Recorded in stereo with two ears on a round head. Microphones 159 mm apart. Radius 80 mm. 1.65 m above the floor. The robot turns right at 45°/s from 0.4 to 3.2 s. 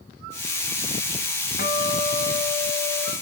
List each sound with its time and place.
1.6 s a guitar: 105° left, 2 m; by 3.1 s 175° left, 2 m